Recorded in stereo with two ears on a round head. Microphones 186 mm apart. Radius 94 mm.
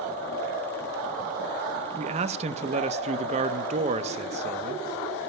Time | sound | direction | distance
2.0 | a man speaking | 35° right (ahead or behind) | 0.9 m